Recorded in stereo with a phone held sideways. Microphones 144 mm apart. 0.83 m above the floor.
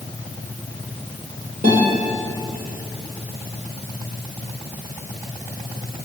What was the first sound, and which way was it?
A guitar, 65° right (ahead or behind).